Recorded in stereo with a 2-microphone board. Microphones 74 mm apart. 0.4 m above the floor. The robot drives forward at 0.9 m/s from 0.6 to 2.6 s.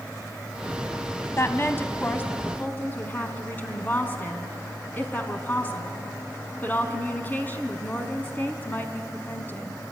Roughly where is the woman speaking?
Left.